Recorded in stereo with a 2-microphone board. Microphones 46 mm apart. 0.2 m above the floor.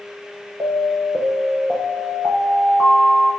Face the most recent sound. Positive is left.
turn(degrees=-35)  # may be behind; listen again after turning